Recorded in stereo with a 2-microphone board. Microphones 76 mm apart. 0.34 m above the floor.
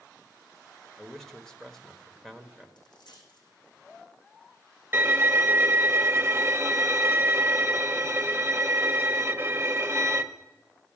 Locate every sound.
1.0 s a man speaking: 5° left (ahead or behind), 1.1 m
2.8 s a dropped coin: 75° left (ahead or behind), 5 m
4.9 s a violin: 30° right (ahead or behind), 0.9 m